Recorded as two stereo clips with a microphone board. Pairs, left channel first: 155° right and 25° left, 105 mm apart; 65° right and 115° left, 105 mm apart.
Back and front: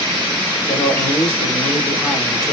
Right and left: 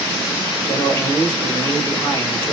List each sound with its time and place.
0.7 s a man speaking: 115° right, 1.9 m